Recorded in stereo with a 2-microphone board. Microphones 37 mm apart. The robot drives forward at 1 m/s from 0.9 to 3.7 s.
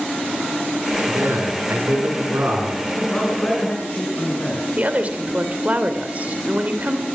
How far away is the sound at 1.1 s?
About 8.5 m.